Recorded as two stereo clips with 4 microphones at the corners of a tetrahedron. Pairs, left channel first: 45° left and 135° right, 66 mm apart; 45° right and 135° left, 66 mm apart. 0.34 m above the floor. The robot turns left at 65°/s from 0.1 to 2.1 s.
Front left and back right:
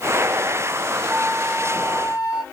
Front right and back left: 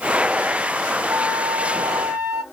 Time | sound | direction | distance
1.1 | a flute | 140° left | 2.5 m